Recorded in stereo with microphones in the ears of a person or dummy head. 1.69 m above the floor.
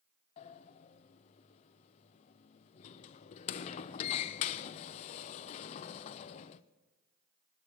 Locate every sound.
0.4 s a sliding door: 40° left (ahead or behind), 0.6 m